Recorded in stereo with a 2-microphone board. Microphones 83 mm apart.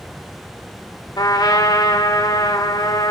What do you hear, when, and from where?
1.2 s a trumpet: 60° left (ahead or behind), 3 m